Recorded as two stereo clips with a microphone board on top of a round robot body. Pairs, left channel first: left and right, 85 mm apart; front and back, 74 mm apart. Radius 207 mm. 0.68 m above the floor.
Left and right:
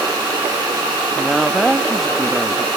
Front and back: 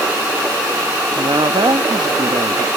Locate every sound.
1.1 s a woman speaking: straight behind